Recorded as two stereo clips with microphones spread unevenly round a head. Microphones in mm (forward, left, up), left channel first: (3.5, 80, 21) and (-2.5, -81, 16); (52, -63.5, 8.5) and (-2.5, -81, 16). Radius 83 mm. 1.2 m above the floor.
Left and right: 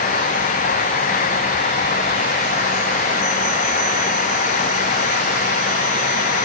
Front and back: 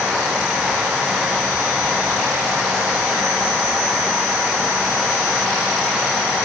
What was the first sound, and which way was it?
Only background noise.